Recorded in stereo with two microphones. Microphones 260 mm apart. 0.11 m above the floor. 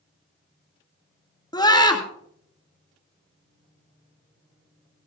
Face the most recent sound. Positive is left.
turn(degrees=15)  # may be behind; listen again after turning